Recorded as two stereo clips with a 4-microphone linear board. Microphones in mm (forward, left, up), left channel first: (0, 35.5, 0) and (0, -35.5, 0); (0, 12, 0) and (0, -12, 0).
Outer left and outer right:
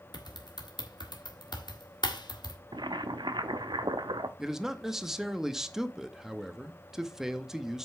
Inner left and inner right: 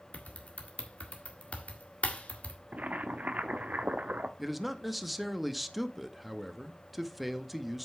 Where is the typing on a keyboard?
75° left (ahead or behind), 1.5 m.